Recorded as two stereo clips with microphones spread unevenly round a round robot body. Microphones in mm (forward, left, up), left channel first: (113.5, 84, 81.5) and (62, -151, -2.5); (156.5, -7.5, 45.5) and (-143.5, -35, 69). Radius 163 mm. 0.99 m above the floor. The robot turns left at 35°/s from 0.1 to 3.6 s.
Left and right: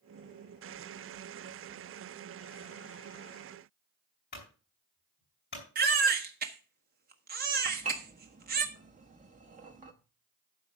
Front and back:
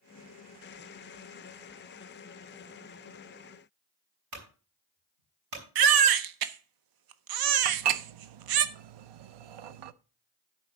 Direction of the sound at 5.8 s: 155° right.